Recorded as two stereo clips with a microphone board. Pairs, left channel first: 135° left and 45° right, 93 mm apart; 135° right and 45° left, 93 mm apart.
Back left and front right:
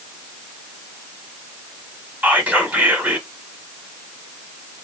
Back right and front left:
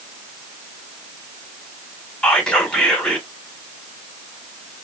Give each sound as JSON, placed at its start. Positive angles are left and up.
{"t": 2.2, "sound": "whispering", "azimuth_deg": -70, "distance_m": 1.0}